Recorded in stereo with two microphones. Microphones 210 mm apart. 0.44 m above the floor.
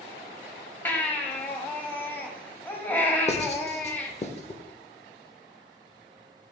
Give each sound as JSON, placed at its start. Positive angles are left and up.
{"t": 0.8, "sound": "a baby crying", "side_deg": 10, "distance_m": 1.1}
{"t": 3.3, "sound": "writing", "side_deg": 30, "distance_m": 1.0}